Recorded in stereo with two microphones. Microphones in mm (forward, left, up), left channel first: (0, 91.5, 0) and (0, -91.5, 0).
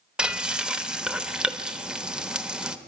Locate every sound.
0.2 s frying: 5° right (ahead or behind), 1.0 m